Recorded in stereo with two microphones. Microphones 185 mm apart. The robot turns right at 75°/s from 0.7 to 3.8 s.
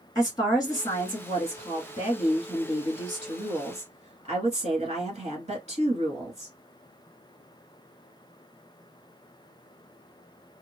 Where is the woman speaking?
35° left, 1.4 m; by 6.5 s 90° right, 1.4 m.